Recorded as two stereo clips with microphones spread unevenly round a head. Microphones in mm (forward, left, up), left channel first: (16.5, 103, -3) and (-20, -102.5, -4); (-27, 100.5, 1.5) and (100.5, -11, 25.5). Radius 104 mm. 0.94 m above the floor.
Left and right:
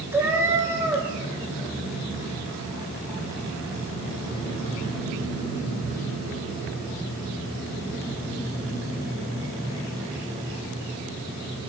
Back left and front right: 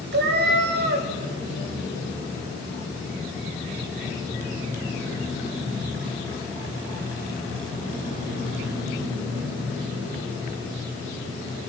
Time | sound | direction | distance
0.1 | a cat meowing | 20° right | 2.0 m